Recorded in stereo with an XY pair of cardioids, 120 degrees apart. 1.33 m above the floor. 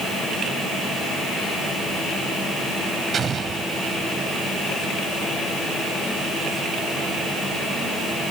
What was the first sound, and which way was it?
An explosion, 40° right.